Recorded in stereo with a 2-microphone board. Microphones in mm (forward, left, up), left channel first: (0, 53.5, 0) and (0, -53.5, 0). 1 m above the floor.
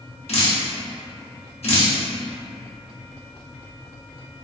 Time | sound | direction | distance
0.3 | dripping | 70° left (ahead or behind) | 0.8 m